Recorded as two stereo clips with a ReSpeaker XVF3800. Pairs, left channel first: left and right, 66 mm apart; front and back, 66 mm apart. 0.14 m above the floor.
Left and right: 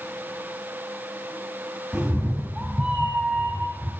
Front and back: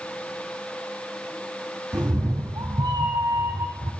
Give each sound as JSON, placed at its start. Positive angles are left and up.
{"t": 1.9, "sound": "a cat meowing", "azimuth_deg": -170, "distance_m": 3.0}